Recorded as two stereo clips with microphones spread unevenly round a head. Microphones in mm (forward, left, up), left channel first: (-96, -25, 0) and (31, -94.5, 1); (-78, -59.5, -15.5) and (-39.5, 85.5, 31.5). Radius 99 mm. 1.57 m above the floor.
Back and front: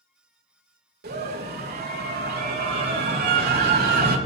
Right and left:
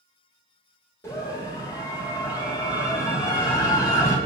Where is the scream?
30° right, 3.5 m.